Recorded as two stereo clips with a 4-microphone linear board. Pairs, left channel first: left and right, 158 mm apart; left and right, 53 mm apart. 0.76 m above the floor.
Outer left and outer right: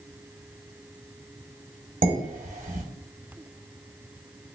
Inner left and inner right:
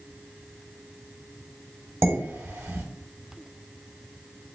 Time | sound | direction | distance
2.0 | dishes clattering | 60° right (ahead or behind) | 1.4 m